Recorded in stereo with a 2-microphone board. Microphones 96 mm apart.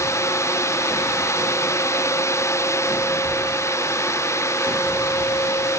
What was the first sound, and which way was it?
Only background noise.